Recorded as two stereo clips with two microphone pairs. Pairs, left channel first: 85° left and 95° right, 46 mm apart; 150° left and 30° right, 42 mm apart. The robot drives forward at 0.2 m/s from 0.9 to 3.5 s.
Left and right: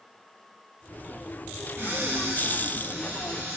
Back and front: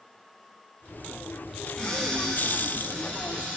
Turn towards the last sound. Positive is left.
turn(degrees=-155)